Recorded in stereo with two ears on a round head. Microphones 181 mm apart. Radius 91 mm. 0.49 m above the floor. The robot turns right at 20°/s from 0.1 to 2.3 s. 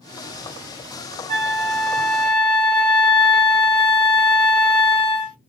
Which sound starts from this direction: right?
A flute, at 1.3 s.